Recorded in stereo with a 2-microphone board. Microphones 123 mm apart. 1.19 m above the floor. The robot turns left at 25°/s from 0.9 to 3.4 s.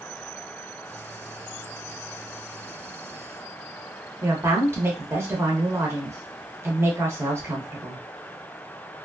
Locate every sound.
4.2 s a woman speaking: 20° right (ahead or behind), 1.0 m